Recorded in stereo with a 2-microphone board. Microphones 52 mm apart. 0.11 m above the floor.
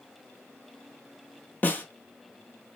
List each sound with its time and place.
1.6 s a snare drum: 30° left (ahead or behind), 0.9 m